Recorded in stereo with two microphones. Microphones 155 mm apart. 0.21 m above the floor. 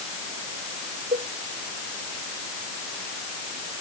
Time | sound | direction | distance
1.1 | a cowbell | 75° right (ahead or behind) | ?